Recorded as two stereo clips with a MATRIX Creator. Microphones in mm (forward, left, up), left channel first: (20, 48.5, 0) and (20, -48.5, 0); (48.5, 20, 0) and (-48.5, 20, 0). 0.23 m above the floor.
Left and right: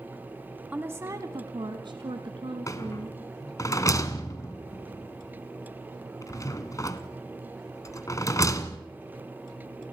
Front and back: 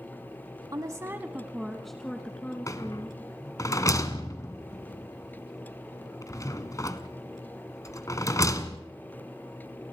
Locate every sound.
0.7 s a woman speaking: 155° right, 1.4 m; by 3.2 s 70° right, 3.5 m
2.7 s a rattle: 45° left, 1.4 m